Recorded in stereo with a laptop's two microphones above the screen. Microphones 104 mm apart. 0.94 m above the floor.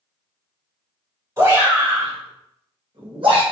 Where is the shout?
35° right (ahead or behind), 1.6 m; by 3.4 s 55° right (ahead or behind), 1.3 m.